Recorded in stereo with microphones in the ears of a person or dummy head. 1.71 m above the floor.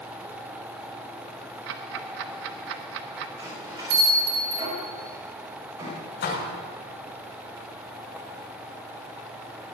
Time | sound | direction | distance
1.7 | ticking | 70° right (ahead or behind) | 1.0 m
3.4 | a bell | 25° right (ahead or behind) | 5.5 m
6.2 | a door slam | 55° left (ahead or behind) | 5.5 m